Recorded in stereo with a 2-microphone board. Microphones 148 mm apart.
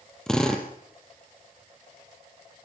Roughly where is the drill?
Centre.